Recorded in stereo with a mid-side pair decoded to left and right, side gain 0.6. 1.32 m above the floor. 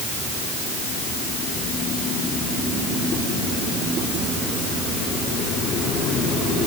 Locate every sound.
Only background noise.